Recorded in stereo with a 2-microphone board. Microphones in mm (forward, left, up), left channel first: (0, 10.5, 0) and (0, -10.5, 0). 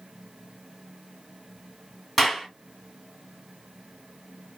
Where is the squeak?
I don't hear a squeak.